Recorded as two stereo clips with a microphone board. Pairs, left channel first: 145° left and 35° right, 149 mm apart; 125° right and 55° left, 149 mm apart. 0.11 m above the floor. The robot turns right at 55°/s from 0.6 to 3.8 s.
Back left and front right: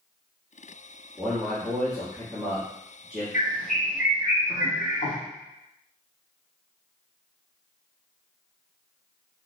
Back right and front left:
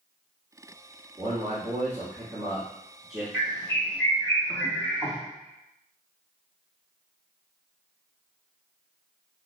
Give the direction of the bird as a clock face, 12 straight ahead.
7 o'clock.